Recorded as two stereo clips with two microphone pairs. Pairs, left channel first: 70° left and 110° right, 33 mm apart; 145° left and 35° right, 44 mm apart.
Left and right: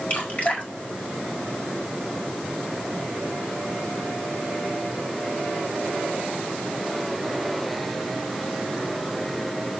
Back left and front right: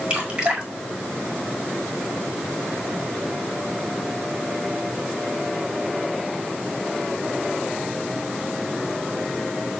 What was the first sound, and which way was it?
Dripping, 30° left.